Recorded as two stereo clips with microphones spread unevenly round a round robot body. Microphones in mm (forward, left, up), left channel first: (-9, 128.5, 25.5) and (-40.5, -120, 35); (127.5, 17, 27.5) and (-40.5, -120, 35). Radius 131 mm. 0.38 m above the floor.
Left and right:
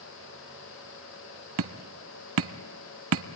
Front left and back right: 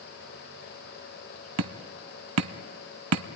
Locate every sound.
1.6 s hammering: 135° right, 0.9 m